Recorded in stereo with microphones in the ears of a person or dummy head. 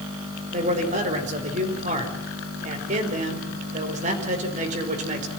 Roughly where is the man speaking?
Right.